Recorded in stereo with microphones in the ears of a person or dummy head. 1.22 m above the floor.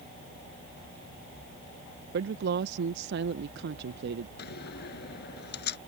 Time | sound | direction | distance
2.1 | a woman speaking | 60° right (ahead or behind) | ?
4.4 | a door slam | 60° left (ahead or behind) | ?